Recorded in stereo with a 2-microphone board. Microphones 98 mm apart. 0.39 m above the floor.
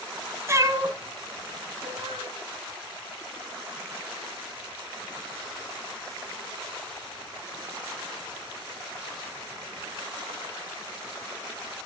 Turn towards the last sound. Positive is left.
turn(degrees=-80)